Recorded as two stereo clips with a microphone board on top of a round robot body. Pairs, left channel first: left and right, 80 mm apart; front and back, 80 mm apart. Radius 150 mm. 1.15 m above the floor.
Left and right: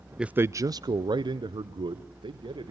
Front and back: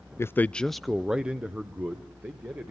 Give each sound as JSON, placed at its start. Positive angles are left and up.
{"t": 0.2, "sound": "a man speaking", "azimuth_deg": -15, "distance_m": 0.5}